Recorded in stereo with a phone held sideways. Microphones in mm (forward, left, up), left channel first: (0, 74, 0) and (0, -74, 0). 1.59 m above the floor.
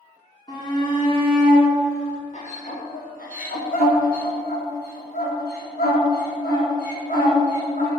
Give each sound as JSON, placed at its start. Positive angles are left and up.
{"t": 0.5, "sound": "a shout", "side_deg": 30, "distance_m": 4.0}